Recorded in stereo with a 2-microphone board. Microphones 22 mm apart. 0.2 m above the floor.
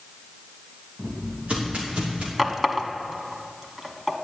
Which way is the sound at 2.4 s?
20° right (ahead or behind).